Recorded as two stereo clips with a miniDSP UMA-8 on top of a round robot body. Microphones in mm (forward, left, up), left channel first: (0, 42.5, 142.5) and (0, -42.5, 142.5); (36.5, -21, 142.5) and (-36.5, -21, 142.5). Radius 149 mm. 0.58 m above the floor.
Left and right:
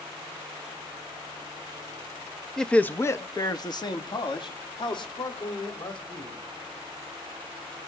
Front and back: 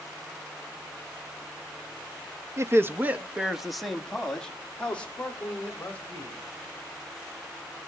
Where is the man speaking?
170° left, 1.3 m; by 6.4 s 70° left, 4.5 m.